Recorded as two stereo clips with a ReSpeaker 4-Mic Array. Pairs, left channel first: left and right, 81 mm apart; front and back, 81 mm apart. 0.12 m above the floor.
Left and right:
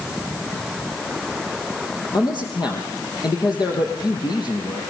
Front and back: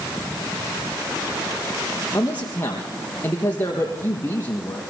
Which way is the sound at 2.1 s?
65° left.